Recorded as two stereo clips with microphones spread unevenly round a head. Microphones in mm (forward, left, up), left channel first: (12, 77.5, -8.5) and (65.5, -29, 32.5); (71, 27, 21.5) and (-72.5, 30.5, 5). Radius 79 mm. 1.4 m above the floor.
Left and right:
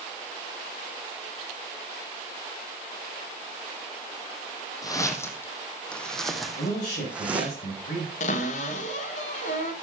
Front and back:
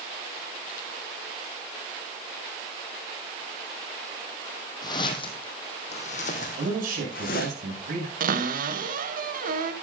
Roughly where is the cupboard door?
Behind left.